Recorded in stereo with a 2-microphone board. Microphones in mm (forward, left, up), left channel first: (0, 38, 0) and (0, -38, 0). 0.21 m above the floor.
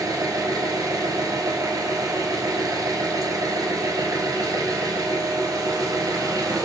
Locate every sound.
0.0 s an engine running: 55° right (ahead or behind), 1.2 m